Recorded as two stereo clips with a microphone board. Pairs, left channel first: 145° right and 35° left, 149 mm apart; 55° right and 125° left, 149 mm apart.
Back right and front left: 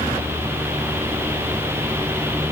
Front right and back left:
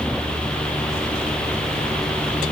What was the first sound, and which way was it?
Only background noise.